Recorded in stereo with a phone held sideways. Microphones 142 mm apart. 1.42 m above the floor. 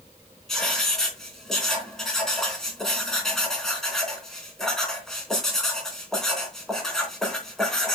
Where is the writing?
5° left (ahead or behind), 3.5 m.